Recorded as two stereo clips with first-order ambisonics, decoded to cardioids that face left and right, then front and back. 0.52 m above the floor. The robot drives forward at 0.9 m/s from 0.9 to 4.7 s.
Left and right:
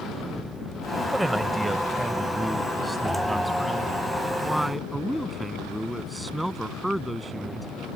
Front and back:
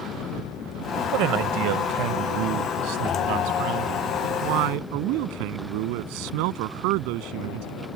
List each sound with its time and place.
1.1 s a man speaking: 175° right; by 7.7 s straight behind